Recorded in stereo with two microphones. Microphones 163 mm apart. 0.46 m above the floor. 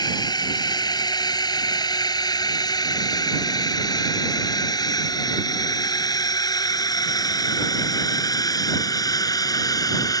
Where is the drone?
25° left (ahead or behind); by 10.2 s 20° left (ahead or behind).